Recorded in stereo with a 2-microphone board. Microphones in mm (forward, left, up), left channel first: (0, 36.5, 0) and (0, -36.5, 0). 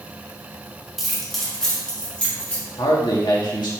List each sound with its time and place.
1.0 s keys jangling: 5° right (ahead or behind), 1.9 m; by 2.6 s 15° left (ahead or behind), 3.5 m
2.8 s a man speaking: 75° left (ahead or behind), 2 m